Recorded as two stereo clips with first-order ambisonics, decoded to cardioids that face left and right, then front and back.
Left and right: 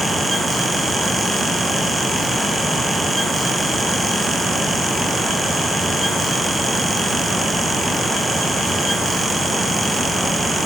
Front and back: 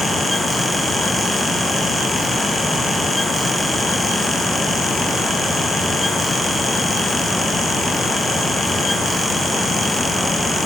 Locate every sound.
Only background noise.